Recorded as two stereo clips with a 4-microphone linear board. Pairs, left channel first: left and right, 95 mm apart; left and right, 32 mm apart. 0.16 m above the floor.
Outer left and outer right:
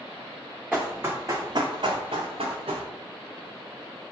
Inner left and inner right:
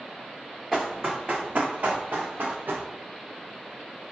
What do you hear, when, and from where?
0.7 s running footsteps: 10° right (ahead or behind), 0.8 m; by 2.9 s 85° right, 1.1 m